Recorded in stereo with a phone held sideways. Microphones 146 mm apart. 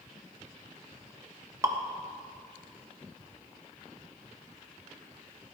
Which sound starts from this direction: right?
Dripping, at 1.6 s.